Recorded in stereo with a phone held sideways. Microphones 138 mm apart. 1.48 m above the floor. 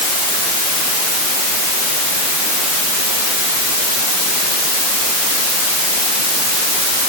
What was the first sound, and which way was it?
Only background noise.